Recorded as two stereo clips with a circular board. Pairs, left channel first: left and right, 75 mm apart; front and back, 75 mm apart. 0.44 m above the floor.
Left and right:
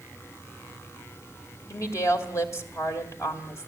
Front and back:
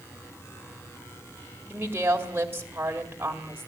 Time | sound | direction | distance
1.7 | a woman speaking | 125° left | 2 m